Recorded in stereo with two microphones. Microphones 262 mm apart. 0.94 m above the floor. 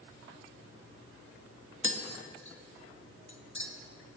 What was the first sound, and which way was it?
Tapping, 50° left (ahead or behind).